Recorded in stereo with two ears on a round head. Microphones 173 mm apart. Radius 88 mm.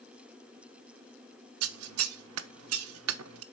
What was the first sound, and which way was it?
Scissors, 85° right.